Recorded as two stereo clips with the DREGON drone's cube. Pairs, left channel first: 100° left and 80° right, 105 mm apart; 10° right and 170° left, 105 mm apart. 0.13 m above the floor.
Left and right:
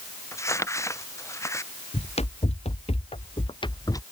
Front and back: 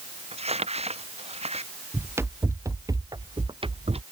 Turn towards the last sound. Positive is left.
turn(degrees=160)